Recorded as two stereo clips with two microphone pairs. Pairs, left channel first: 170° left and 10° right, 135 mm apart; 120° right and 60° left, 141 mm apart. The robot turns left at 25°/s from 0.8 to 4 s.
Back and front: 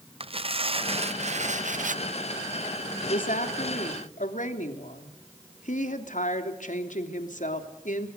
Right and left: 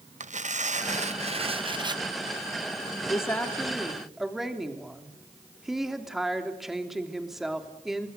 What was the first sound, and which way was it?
Tearing paper, 35° left.